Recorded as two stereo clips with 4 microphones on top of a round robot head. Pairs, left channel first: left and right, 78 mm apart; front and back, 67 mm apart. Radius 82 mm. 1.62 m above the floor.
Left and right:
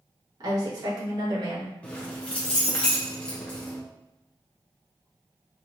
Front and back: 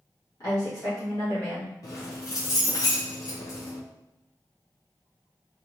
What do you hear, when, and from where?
0.4 s a woman speaking: 55° right, 1.7 m
1.8 s keys jangling: 15° left, 0.6 m